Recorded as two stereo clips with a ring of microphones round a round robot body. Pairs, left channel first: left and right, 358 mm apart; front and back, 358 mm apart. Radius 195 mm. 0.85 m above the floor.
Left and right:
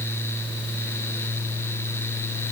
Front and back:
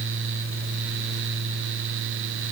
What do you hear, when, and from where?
Only background noise.